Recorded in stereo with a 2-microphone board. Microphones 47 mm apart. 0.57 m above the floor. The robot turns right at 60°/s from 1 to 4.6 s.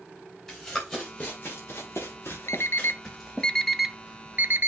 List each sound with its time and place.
0.5 s running footsteps: 10° left (ahead or behind), 4 m; by 3.5 s 15° right (ahead or behind), 3 m
2.5 s an alarm clock: 70° left (ahead or behind), 0.6 m; by 4.7 s 45° right (ahead or behind), 0.6 m